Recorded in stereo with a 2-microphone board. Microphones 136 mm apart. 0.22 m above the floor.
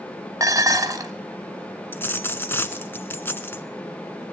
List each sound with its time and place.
0.4 s dishes clattering: 30° right (ahead or behind), 1.0 m
1.9 s a dropped coin: 15° left (ahead or behind), 0.9 m